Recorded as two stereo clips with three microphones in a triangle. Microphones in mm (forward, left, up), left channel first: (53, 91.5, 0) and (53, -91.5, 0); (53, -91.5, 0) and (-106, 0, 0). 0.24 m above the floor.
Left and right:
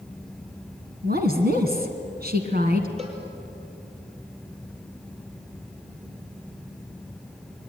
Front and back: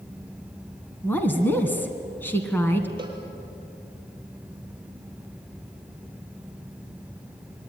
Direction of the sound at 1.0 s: 110° right.